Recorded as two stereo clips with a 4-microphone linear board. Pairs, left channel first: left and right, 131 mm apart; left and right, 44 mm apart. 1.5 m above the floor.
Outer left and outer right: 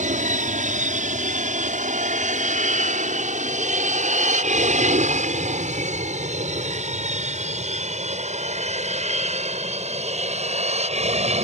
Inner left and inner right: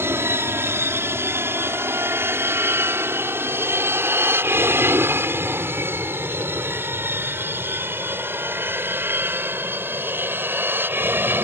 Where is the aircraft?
75° right (ahead or behind); by 11.5 s 55° right (ahead or behind).